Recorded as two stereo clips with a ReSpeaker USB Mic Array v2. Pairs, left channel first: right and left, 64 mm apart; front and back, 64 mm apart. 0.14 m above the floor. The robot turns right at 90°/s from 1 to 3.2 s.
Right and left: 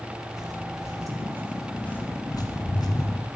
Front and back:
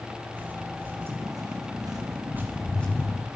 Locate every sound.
0.3 s footsteps: 120° left, 5.5 m; by 3.3 s 40° right, 7 m